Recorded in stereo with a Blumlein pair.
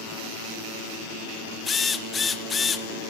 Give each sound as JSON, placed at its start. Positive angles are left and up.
{"t": 1.6, "sound": "a drill", "azimuth_deg": 15, "distance_m": 1.5}